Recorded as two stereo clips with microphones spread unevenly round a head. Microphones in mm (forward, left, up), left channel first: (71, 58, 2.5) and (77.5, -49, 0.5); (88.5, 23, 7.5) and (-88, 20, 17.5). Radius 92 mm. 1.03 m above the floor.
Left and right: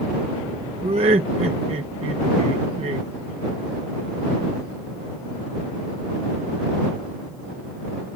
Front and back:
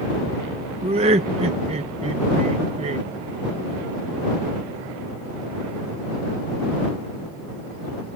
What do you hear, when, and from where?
0.8 s laughter: 120° right